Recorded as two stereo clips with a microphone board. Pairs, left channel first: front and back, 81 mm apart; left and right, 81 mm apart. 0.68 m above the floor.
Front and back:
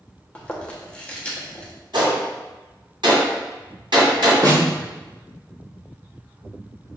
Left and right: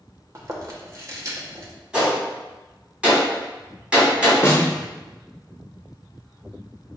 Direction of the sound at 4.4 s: 145° left.